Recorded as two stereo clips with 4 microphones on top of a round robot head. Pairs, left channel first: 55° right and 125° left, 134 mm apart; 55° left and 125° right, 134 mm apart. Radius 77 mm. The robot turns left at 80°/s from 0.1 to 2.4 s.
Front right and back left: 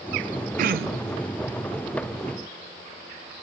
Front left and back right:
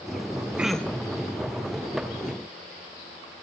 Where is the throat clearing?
155° left, 0.7 m; by 1.2 s 100° left, 0.7 m.